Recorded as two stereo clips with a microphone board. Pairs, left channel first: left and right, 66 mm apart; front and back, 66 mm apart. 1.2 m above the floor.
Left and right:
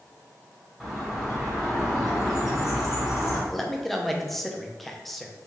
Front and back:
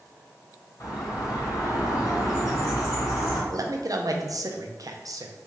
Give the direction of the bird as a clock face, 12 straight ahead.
12 o'clock.